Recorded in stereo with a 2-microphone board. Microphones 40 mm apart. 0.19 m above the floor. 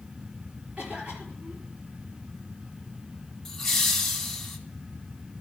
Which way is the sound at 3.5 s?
5° left (ahead or behind).